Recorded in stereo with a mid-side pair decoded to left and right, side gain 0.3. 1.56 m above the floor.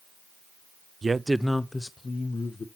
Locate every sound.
1.0 s a man speaking: 50° right, 0.5 m; by 2.7 s 50° left, 1.4 m